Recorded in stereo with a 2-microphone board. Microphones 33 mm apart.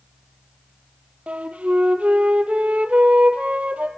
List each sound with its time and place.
1.3 s a flute: 45° right (ahead or behind), 1.3 m